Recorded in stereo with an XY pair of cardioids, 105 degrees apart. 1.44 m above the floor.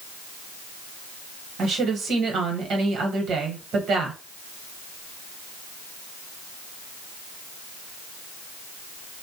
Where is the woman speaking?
65° right, 1.1 m.